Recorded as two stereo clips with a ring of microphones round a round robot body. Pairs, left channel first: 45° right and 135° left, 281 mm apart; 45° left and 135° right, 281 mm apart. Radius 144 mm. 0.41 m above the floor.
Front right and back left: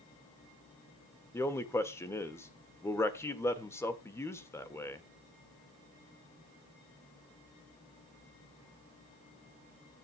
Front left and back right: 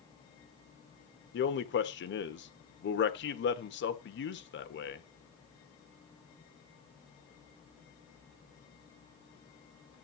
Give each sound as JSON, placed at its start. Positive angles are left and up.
{"t": 1.3, "sound": "a man speaking", "azimuth_deg": 30, "distance_m": 1.4}